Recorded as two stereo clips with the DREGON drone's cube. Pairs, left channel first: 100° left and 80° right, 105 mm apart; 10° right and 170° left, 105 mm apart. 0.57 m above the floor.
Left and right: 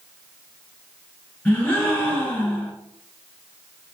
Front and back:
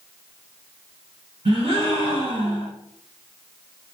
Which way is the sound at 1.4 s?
Straight behind.